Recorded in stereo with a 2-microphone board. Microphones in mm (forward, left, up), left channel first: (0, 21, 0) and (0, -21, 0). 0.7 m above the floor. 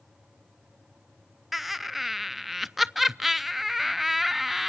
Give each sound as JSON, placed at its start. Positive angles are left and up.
{"t": 1.5, "sound": "laughter", "side_deg": -5, "distance_m": 0.5}